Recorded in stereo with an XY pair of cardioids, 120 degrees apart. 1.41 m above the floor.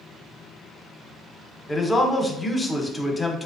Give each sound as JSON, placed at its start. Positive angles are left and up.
{"t": 1.7, "sound": "a man speaking", "azimuth_deg": 15, "distance_m": 0.8}